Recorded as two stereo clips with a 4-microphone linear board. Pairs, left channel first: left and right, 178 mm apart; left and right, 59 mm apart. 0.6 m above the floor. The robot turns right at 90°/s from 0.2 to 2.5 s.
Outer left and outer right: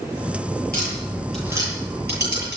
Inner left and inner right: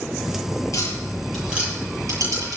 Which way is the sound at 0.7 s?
60° left (ahead or behind).